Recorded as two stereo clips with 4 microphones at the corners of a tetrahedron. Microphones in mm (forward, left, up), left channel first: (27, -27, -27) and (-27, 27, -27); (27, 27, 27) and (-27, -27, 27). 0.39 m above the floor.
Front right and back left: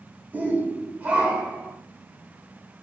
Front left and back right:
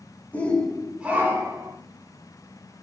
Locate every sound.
0.3 s a shout: 90° left, 1.2 m; by 1.8 s 150° right, 1.6 m